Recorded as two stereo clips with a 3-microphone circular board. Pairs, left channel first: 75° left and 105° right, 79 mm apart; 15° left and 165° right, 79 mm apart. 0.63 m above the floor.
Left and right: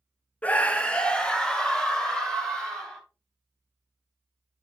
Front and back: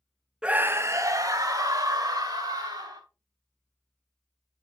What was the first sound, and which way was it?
A scream, 130° left.